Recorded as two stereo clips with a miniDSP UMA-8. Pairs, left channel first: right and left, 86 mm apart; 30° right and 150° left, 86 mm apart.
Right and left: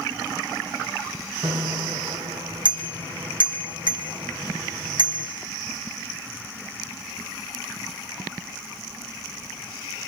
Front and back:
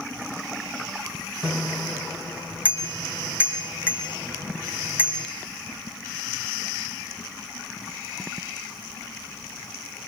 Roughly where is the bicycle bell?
Left.